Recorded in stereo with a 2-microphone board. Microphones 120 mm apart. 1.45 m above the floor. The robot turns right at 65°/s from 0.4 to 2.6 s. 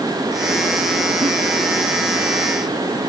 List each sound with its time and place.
1.2 s a giggle: 45° right (ahead or behind); by 1.3 s 55° right (ahead or behind)